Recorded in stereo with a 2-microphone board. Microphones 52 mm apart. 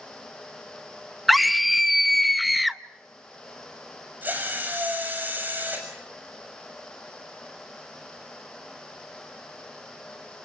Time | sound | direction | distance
1.3 | a scream | centre (ahead or behind) | 0.8 m
4.2 | a drill | 35° right (ahead or behind) | 6.5 m